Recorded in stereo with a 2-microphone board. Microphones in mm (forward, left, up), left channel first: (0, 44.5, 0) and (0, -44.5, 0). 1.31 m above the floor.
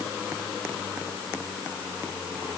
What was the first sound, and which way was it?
Only background noise.